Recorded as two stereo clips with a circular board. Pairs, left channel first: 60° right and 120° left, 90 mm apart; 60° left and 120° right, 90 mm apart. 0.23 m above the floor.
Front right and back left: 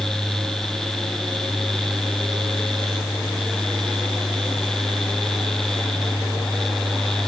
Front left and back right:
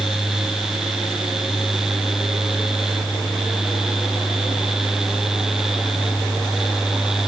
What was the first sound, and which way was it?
Only background noise.